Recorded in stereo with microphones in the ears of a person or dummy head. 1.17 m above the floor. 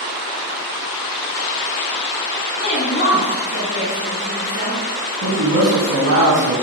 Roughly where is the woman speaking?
Left.